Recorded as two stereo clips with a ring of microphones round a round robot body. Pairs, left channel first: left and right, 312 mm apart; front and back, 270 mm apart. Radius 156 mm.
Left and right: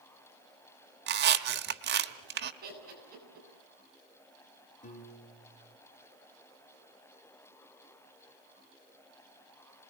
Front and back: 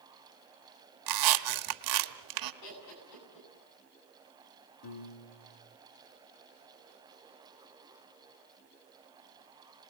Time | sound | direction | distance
1.1 | a squeak | 150° right | 1.2 m
2.6 | laughter | 25° right | 9.5 m
4.8 | a piano | 25° left | 2.5 m